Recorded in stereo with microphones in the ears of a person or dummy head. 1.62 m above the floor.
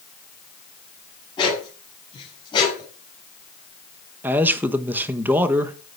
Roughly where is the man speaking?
Centre.